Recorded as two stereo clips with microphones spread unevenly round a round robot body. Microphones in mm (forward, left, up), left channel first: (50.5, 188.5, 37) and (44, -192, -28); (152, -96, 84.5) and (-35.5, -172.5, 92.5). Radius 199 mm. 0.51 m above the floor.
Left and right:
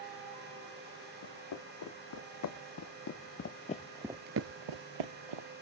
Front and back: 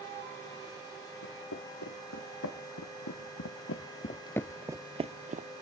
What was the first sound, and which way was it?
Footsteps, 50° left.